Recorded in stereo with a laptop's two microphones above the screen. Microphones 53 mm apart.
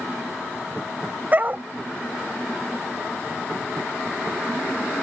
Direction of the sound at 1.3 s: 35° right (ahead or behind).